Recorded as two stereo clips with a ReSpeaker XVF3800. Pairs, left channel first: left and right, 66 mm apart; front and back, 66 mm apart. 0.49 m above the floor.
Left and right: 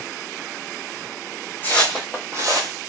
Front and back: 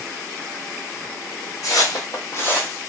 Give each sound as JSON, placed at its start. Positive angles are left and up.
{"t": 1.6, "sound": "footsteps", "azimuth_deg": 25, "distance_m": 1.0}